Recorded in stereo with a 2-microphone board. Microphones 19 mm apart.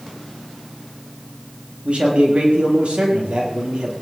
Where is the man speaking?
85° right, 7 m; by 3.9 s 80° right, 7.5 m.